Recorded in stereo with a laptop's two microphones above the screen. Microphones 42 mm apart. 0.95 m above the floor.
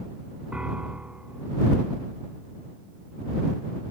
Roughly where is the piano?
Right.